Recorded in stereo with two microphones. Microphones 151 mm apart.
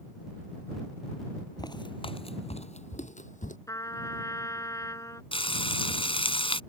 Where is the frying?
35° left (ahead or behind).